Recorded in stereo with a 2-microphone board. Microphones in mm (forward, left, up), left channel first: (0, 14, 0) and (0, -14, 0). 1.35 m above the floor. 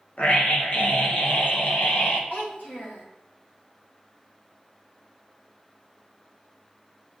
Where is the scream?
55° left (ahead or behind), 1.4 m.